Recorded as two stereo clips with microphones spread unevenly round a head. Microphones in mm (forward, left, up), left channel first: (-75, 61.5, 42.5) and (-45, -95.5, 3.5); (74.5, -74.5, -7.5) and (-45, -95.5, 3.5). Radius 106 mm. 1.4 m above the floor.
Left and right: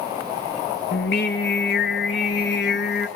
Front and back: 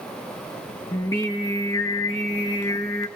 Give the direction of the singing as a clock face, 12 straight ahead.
9 o'clock.